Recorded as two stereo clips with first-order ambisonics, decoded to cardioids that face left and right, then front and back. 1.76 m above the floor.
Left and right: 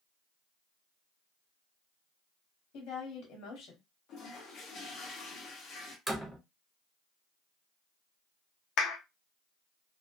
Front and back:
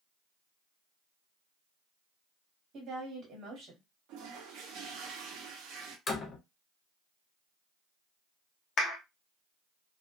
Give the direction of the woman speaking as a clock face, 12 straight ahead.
8 o'clock.